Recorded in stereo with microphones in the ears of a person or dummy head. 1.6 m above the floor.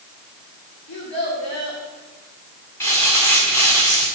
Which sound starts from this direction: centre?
Crumpling, at 2.8 s.